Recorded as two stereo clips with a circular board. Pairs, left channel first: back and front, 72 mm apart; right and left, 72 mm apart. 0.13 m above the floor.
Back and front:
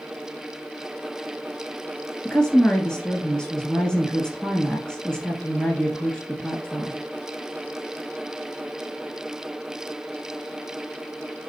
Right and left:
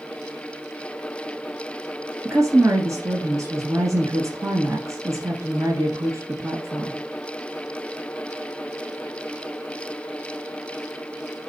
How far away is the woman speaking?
About 1.6 m.